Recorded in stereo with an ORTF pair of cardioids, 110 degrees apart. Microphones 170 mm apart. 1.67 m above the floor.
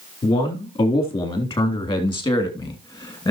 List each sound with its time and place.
0.2 s a man speaking: 35° left, 4 m; by 3.3 s 25° left, 2.5 m